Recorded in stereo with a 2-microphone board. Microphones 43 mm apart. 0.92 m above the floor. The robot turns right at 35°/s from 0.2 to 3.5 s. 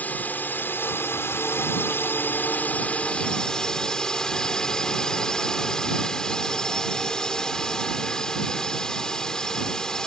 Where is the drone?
50° left; by 10.1 s 165° left.